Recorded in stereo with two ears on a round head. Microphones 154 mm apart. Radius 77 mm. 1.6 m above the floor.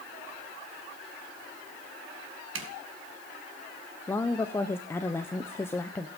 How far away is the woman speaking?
About 0.8 m.